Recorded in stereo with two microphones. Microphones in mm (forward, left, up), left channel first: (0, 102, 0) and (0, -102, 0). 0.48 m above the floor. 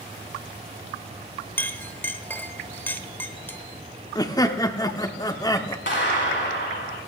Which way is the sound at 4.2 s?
15° left (ahead or behind).